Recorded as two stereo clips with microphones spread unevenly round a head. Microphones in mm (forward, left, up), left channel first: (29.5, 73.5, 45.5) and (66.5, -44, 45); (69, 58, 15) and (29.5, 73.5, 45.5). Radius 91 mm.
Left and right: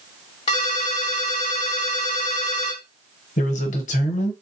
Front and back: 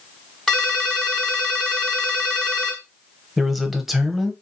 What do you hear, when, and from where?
0.5 s a ringtone: 130° left, 1.1 m
3.4 s a man speaking: 100° left, 0.8 m